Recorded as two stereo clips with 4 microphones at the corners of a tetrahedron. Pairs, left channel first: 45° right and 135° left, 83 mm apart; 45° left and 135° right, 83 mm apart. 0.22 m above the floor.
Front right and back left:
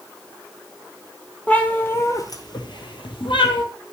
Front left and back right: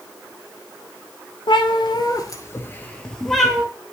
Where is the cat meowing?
30° left, 1.1 m; by 3.6 s 50° right, 1.3 m.